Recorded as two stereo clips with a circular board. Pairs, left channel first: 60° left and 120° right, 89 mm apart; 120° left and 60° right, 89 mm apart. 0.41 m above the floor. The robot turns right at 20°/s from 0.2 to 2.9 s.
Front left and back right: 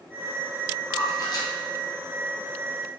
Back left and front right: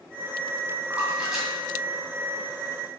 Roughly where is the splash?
Ahead.